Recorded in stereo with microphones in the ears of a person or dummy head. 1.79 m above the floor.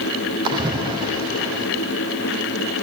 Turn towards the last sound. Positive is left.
turn(degrees=-25)  # may be behind; listen again after turning